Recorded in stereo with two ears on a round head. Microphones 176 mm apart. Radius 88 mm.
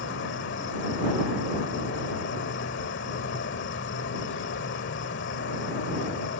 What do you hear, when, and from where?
0.0 s an insect: 65° left (ahead or behind)